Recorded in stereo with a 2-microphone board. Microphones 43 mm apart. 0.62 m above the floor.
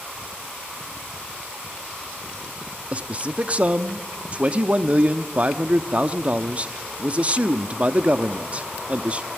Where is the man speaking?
30° right (ahead or behind), 0.9 m.